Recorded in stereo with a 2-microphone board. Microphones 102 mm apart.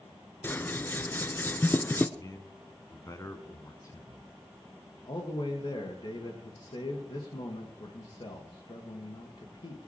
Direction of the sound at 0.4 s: 20° left (ahead or behind).